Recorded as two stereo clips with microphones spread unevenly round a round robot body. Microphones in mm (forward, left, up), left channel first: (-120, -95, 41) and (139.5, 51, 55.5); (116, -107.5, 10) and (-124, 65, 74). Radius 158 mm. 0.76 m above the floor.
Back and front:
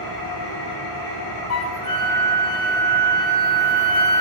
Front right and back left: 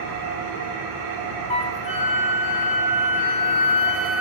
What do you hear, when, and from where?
0.0 s an engine running: 175° right, 6.5 m
1.5 s a flute: 110° right, 1.3 m